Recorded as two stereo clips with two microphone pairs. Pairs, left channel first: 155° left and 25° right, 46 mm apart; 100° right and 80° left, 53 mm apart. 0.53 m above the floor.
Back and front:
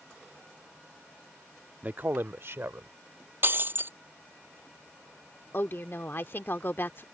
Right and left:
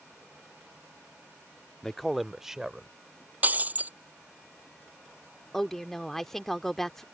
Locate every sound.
1.8 s a man speaking: 35° right; by 2.9 s straight ahead
3.4 s breaking glass: 20° left
5.5 s a woman speaking: 175° left